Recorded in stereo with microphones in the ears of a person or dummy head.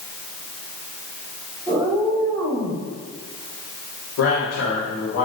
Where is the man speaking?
75° left (ahead or behind), 5 m.